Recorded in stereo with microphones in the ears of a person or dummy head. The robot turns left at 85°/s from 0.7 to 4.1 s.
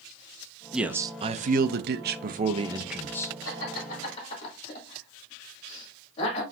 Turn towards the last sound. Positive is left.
turn(degrees=35)  # may be behind; listen again after turning